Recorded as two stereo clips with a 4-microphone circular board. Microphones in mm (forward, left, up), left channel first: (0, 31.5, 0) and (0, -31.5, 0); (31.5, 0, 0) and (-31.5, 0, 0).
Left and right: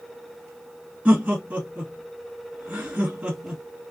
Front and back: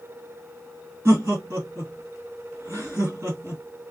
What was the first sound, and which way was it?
Laughter, 155° right.